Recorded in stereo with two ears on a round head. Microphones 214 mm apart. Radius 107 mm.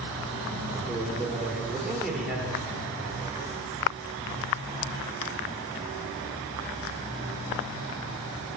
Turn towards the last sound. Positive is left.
turn(degrees=0)  # may be behind; listen again after turning